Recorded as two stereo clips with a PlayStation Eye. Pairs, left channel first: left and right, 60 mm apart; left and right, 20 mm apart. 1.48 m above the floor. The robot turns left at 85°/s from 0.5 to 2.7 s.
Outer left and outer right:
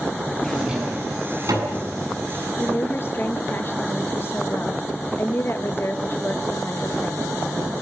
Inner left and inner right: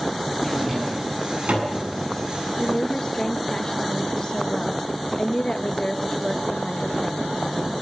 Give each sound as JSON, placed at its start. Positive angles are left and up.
{"t": 0.4, "sound": "a drawer", "side_deg": 5, "distance_m": 8.0}
{"t": 2.6, "sound": "a woman speaking", "side_deg": 50, "distance_m": 1.9}